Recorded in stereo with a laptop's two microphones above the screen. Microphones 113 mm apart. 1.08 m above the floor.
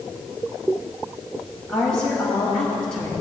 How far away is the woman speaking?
About 6.5 m.